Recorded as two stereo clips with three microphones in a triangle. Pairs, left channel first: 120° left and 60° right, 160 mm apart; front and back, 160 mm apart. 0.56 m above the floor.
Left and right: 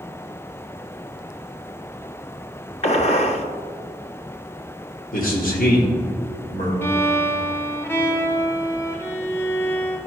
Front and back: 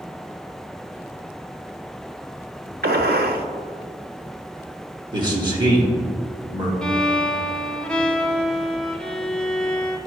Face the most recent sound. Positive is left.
turn(degrees=75)